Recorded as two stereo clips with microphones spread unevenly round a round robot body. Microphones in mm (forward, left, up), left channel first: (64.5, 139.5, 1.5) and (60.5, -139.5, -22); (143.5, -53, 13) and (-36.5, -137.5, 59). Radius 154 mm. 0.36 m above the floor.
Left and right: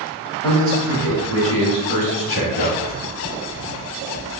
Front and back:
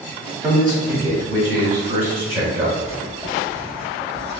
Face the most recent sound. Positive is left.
turn(degrees=100)